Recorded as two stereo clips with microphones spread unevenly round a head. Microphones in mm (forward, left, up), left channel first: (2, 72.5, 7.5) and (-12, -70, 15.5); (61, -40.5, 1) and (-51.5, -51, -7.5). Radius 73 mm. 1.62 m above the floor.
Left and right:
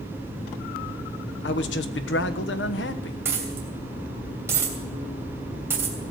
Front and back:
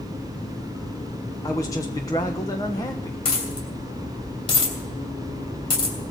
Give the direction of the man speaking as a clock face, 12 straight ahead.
10 o'clock.